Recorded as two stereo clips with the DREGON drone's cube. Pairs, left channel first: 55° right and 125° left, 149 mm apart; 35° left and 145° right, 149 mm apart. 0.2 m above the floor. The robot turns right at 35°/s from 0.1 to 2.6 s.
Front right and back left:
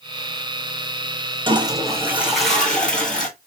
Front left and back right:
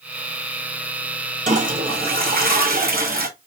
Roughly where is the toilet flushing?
Behind.